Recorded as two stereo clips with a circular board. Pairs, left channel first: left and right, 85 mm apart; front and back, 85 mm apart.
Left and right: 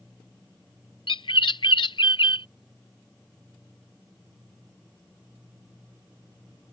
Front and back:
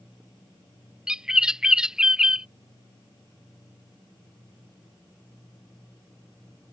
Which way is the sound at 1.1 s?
100° left.